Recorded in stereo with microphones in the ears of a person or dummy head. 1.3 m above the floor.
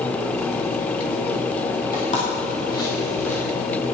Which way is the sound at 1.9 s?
40° left (ahead or behind).